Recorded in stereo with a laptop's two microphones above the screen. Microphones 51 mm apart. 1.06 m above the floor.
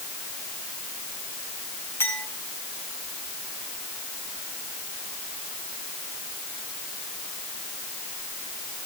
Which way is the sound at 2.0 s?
55° left (ahead or behind).